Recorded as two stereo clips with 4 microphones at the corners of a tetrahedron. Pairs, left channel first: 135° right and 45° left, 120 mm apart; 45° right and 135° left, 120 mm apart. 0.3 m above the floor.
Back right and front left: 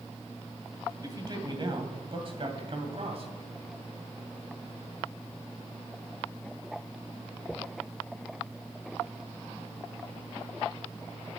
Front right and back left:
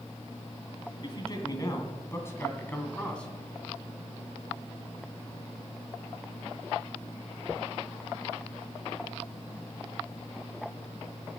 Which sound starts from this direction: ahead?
A man speaking, at 1.0 s.